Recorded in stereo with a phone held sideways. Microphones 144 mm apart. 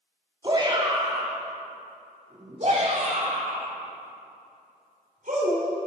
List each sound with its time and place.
0.4 s a shout: 30° right (ahead or behind), 2.5 m; by 5.7 s 70° right (ahead or behind), 4.5 m